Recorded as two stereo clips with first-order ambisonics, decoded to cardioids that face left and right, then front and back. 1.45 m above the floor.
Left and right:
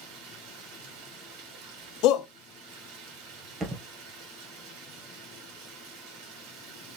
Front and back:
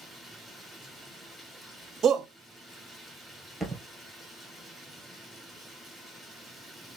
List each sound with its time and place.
0.0 s running water: 80° right, 2.5 m
2.0 s a shout: 115° left, 0.9 m
3.6 s a thud: 95° right, 1.5 m